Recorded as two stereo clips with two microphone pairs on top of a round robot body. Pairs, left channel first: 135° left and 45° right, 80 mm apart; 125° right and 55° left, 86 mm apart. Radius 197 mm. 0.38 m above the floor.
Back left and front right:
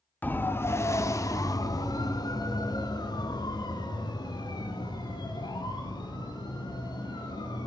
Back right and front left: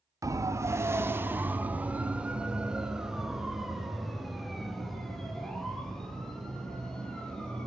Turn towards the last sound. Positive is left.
turn(degrees=155)